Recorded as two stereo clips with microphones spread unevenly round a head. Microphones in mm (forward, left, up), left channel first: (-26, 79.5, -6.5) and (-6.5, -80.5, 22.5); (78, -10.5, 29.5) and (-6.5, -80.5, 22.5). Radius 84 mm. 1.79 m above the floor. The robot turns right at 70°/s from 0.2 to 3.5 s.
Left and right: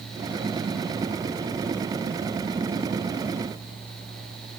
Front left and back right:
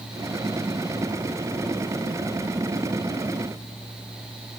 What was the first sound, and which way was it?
Only background noise.